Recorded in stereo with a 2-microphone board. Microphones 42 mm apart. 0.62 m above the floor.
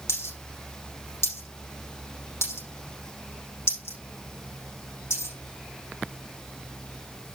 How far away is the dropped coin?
About 9.5 m.